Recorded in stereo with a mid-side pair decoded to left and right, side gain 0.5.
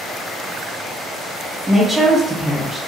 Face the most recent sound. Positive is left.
turn(degrees=-10)